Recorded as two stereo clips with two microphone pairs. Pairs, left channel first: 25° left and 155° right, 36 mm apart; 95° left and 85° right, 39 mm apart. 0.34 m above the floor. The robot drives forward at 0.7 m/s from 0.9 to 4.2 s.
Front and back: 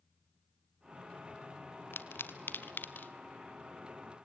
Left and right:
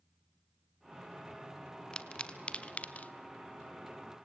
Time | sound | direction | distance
1.9 | a pop | 30° left | 1.7 m